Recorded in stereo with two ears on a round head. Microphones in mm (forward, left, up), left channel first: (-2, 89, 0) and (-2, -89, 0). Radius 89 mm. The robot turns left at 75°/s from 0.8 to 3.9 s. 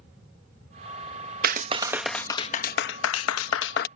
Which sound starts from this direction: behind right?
A clap, at 1.4 s.